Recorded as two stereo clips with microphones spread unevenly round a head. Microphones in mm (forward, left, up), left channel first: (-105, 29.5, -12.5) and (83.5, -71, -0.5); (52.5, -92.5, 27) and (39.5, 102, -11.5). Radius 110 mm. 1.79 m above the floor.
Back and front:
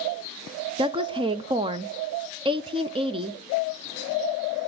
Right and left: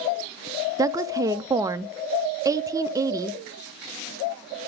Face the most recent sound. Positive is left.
turn(degrees=15)